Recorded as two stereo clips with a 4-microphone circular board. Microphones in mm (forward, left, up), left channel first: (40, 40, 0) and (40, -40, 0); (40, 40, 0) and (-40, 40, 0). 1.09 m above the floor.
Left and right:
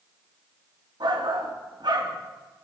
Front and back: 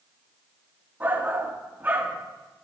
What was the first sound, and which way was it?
A shout, 115° right.